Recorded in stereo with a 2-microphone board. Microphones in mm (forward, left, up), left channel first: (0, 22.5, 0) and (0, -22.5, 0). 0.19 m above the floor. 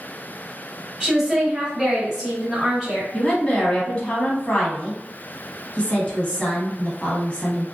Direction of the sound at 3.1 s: 25° left (ahead or behind).